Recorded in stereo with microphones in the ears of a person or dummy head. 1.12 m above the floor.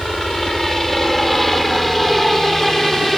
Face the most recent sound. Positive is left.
turn(degrees=0)  # may be behind; listen again after turning